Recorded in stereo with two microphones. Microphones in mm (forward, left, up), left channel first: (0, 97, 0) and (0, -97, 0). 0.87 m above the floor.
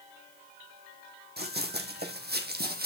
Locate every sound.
1.4 s running footsteps: 60° right (ahead or behind), 2 m; by 2.9 s 55° right (ahead or behind), 1.5 m